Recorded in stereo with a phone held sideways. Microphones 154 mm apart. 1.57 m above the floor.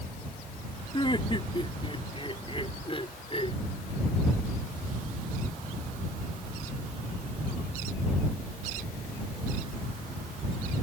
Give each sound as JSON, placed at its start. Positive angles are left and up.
{"t": 0.9, "sound": "laughter", "side_deg": 35}